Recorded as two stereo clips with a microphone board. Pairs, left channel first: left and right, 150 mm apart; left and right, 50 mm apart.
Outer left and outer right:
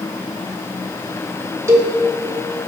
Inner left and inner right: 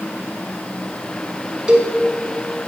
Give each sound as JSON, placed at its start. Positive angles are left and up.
{"t": 1.7, "sound": "a cowbell", "side_deg": -20, "distance_m": 1.3}